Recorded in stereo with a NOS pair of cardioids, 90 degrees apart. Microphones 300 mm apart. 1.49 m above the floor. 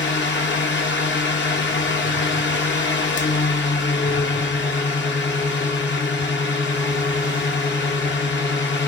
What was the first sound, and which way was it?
A fan, 40° left.